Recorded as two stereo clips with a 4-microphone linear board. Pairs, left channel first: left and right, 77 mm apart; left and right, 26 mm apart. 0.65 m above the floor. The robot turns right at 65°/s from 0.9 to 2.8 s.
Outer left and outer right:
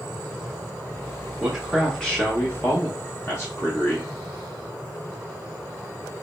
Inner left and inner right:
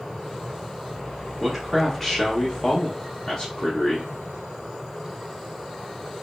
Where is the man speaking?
25° right, 1.0 m; by 4.1 s 70° left, 1.0 m.